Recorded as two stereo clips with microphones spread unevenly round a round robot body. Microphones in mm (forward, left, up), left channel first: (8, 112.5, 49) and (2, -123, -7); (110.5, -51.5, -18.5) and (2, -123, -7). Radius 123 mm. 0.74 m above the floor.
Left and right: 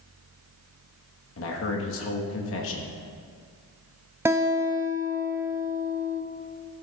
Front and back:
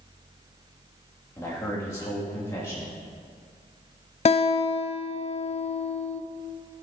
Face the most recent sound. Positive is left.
turn(degrees=-10)